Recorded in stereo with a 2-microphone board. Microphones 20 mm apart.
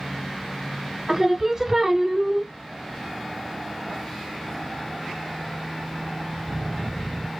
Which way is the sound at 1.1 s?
10° right (ahead or behind).